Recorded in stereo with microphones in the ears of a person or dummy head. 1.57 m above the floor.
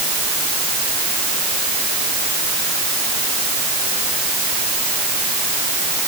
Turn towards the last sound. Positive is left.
No sound to turn to.